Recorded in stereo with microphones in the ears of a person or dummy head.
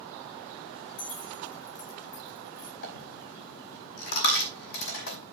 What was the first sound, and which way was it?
Keys jangling, 65° left (ahead or behind).